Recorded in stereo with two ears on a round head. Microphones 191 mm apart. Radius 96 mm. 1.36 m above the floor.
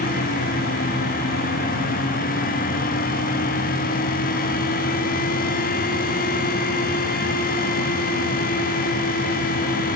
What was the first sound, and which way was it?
Only background noise.